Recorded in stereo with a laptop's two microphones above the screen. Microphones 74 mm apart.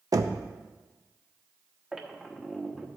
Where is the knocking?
55° right (ahead or behind), 0.6 m.